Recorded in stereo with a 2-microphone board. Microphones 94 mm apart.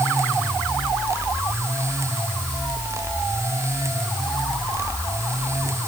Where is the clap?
No clap in this recording.